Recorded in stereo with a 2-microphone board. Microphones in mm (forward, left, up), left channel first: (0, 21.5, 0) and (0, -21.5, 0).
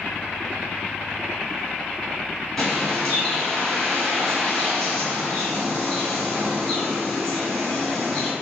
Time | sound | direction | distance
2.6 | a bird | 15° left (ahead or behind) | 1.4 m